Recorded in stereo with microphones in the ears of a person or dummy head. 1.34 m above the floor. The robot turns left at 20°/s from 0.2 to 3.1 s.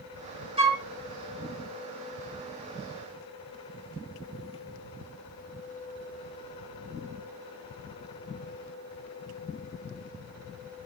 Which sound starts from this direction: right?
A flute, at 0.6 s.